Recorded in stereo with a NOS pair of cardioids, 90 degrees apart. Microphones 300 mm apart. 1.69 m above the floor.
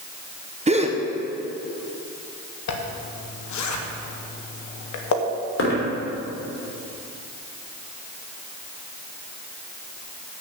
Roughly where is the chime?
No chime in this recording.